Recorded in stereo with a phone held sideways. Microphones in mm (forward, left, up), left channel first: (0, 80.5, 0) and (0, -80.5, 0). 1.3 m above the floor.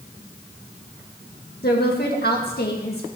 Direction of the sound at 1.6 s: 80° left.